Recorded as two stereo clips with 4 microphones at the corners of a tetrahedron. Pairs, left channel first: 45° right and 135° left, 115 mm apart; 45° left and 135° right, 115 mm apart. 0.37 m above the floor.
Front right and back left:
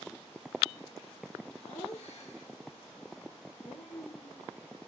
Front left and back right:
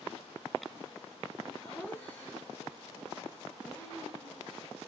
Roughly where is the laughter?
Ahead right.